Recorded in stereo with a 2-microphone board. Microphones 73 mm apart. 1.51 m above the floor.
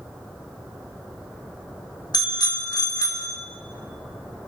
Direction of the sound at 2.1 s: 70° left (ahead or behind).